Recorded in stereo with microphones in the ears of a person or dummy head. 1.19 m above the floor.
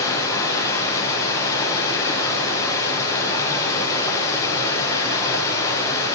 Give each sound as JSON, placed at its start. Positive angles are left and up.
{"t": 0.0, "sound": "running water", "side_deg": 20, "distance_m": 6.5}